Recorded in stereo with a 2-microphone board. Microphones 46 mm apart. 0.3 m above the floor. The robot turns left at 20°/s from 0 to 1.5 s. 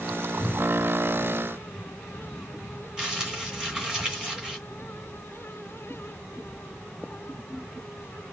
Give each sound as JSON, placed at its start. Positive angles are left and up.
{"t": 0.4, "sound": "a cupboard door", "side_deg": -20, "distance_m": 1.8}
{"t": 3.0, "sound": "crumpling", "side_deg": -15, "distance_m": 2.5}